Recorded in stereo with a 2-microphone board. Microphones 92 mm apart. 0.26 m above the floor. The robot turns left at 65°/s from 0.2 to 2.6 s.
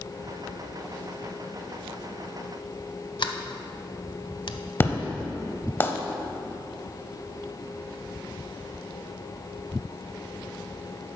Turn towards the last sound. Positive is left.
turn(degrees=25)  # may be behind; listen again after turning